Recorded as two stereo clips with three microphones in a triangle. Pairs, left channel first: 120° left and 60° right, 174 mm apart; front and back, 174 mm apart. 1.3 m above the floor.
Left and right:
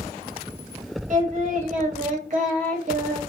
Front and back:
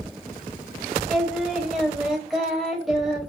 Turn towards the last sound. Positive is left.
turn(degrees=-90)